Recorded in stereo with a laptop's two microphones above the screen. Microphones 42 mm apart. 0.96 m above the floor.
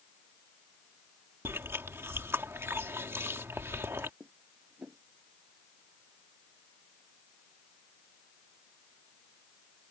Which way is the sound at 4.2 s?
45° right (ahead or behind).